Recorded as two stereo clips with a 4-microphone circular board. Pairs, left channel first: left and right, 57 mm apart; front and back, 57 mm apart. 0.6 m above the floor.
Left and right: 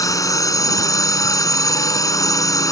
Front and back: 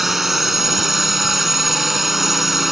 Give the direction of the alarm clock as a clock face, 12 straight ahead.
No alarm clock in this recording.